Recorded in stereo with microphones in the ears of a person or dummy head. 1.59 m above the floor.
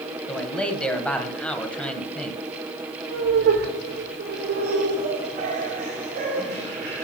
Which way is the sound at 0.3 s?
10° left (ahead or behind).